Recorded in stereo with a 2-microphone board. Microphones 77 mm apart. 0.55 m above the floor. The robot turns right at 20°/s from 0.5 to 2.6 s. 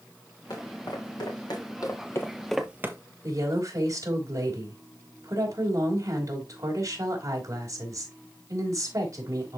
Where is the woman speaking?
50° right (ahead or behind), 3 m.